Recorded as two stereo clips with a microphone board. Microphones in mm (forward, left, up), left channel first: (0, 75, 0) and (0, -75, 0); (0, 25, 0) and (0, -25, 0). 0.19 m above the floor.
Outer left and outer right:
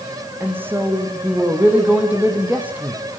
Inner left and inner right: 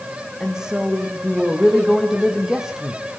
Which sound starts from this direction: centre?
A woman speaking, at 0.4 s.